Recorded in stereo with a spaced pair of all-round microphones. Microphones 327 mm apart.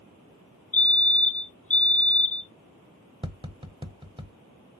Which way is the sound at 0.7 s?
40° left (ahead or behind).